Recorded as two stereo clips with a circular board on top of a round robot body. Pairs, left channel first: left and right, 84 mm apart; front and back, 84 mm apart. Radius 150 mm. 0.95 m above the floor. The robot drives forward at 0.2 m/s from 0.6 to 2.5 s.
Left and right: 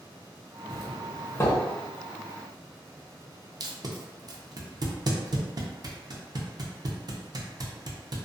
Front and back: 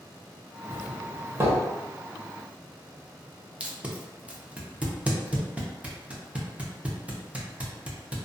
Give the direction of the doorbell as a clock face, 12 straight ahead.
8 o'clock.